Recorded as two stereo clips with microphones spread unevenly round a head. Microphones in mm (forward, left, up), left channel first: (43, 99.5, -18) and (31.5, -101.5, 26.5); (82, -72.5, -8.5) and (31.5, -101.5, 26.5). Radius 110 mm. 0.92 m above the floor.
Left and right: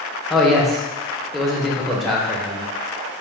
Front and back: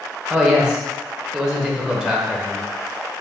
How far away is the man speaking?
About 0.7 m.